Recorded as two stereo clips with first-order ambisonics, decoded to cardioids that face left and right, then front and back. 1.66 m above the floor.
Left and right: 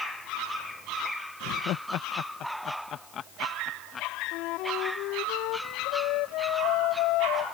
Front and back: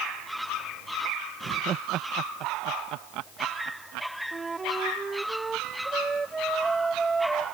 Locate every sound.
1.4 s laughter: 120° left; by 4.1 s 155° left
4.3 s a flute: 105° left